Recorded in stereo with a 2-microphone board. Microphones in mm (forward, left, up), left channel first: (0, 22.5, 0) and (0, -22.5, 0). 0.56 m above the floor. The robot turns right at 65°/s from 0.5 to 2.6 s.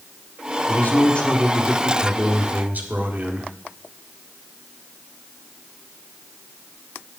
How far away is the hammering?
I don't hear hammering.